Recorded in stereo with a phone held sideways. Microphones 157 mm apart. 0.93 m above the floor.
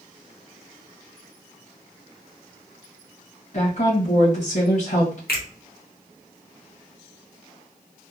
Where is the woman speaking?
50° left (ahead or behind), 1.3 m.